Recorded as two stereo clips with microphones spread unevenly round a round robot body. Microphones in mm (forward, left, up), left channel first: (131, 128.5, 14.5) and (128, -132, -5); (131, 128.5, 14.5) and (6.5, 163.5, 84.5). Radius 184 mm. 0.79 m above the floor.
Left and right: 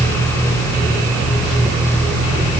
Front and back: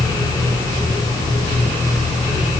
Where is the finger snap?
No finger snap in this recording.